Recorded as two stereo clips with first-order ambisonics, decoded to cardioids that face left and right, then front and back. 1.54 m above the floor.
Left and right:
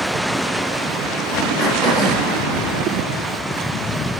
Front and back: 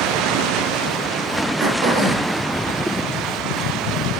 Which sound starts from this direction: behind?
Throat clearing, at 1.6 s.